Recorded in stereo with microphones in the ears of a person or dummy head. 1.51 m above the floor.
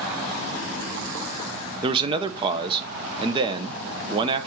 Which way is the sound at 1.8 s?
30° right (ahead or behind).